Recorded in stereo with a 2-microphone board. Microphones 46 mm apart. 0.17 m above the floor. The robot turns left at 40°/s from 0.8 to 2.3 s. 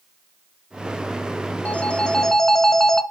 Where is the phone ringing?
30° left (ahead or behind), 1.1 m; by 3.0 s 10° left (ahead or behind), 1.1 m.